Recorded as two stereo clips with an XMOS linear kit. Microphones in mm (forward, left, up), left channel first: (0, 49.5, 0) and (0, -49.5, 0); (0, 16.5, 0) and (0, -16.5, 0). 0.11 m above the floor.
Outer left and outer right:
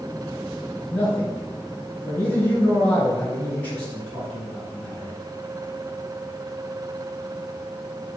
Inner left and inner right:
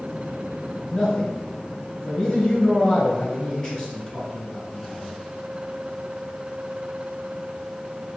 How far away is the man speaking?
About 1.9 m.